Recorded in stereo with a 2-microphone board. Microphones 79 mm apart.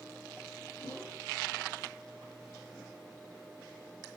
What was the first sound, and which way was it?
A whoosh, 60° left (ahead or behind).